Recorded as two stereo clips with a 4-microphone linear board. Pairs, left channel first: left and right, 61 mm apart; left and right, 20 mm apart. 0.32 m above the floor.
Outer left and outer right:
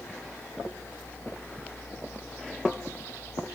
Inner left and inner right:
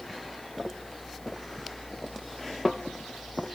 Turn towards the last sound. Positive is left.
No sound to turn to.